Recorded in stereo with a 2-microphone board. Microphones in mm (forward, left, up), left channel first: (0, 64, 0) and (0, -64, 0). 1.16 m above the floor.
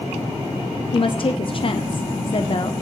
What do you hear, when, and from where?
0.9 s a woman speaking: 45° left (ahead or behind), 0.5 m